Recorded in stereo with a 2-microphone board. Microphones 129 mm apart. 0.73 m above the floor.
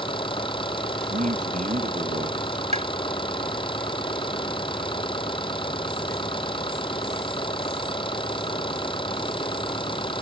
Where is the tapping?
60° right (ahead or behind).